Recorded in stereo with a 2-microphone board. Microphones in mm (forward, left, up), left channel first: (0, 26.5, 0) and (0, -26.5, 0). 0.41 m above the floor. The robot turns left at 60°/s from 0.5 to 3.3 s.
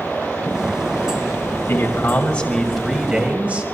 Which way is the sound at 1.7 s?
65° left.